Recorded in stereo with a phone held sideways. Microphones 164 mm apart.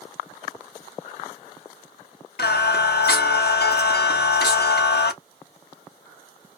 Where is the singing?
75° left (ahead or behind), 0.7 m.